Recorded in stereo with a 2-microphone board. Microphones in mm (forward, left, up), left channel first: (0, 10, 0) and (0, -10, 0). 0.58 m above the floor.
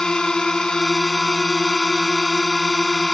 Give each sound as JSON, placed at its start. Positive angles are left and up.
{"t": 0.0, "sound": "a drone", "side_deg": 35}